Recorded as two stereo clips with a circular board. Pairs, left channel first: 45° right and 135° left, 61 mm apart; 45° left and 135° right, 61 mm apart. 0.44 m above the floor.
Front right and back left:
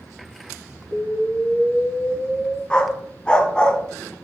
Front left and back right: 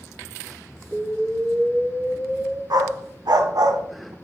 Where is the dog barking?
120° right, 0.7 m.